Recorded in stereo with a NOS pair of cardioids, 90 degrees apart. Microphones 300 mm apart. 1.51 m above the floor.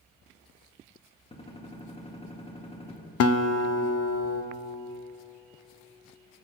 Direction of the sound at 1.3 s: 20° left.